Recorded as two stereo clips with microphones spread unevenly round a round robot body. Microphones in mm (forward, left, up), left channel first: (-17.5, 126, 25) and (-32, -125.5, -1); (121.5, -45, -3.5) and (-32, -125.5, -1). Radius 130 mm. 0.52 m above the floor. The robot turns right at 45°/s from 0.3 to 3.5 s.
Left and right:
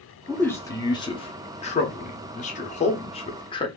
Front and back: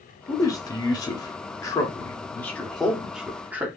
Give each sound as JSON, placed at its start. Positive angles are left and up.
{"t": 0.3, "sound": "a man speaking", "azimuth_deg": -5, "distance_m": 0.7}